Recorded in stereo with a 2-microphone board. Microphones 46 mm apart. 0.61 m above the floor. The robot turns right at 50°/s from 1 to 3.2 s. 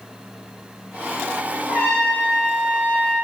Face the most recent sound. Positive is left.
turn(degrees=-50)